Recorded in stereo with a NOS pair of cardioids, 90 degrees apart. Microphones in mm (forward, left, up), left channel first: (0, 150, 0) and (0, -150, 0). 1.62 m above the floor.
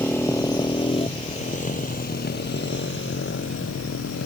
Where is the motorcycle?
5° left; by 4.3 s 50° left.